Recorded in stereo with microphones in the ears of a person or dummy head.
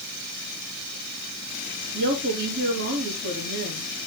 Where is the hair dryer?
I don't hear a hair dryer.